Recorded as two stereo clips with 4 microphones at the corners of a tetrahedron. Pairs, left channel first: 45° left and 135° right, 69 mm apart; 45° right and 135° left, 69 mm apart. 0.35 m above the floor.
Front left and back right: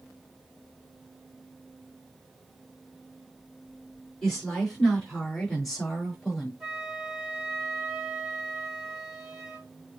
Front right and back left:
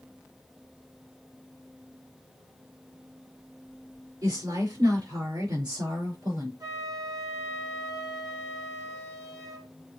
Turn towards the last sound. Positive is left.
turn(degrees=145)